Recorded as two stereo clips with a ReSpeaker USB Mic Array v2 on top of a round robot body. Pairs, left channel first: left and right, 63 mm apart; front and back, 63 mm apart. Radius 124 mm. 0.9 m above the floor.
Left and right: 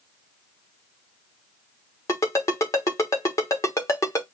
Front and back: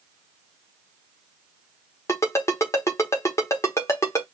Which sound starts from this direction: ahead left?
A ringtone, at 2.1 s.